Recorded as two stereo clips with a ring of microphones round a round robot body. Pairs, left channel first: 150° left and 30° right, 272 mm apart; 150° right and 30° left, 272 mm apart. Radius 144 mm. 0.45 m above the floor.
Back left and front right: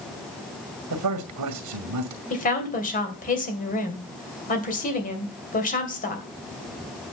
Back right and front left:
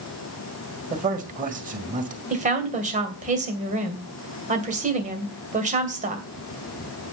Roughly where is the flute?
I don't hear a flute.